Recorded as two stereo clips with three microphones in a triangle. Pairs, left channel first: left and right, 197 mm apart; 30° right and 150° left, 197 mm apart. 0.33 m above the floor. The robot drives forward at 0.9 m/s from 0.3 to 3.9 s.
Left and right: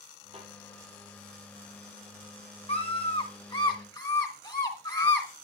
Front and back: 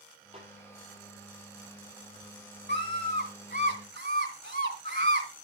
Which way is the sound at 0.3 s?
150° right.